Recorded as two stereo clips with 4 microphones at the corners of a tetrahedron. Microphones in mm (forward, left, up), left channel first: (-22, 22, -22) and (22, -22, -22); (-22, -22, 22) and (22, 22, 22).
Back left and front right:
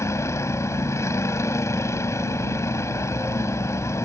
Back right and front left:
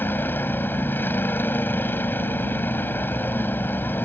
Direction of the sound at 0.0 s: 170° left.